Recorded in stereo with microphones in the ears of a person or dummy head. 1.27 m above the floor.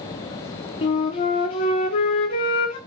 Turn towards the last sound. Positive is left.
turn(degrees=25)  # may be behind; listen again after turning